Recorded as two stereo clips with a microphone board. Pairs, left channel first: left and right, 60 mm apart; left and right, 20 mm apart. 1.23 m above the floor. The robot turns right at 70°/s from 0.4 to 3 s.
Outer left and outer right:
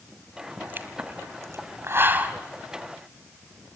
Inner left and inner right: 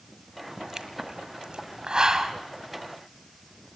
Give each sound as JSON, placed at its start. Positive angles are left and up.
{"t": 0.6, "sound": "a pop", "side_deg": -25, "distance_m": 1.8}